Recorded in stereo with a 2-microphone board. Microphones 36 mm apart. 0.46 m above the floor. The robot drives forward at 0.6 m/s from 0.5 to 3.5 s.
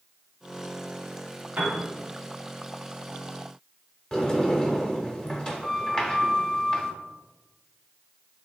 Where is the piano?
45° right (ahead or behind), 1.0 m; by 1.8 s 50° right (ahead or behind), 1.0 m.